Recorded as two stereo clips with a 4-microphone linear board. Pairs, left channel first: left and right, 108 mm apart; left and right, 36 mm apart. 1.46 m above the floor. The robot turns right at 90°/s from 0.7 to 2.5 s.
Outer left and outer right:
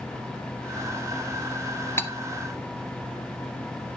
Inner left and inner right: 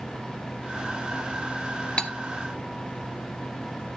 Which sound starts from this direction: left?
Cutlery clinking, at 2.0 s.